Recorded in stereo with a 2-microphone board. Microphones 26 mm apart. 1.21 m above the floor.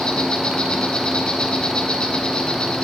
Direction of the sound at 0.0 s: 45° left (ahead or behind).